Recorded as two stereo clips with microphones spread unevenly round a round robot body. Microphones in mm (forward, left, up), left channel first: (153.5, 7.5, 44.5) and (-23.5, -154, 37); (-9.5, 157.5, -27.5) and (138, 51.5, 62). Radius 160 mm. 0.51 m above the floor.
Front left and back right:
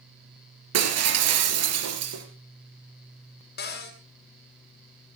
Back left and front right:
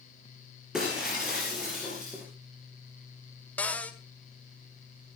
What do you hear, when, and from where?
0.7 s breaking glass: 125° right, 3.5 m
3.6 s a cupboard door: 85° left, 1.8 m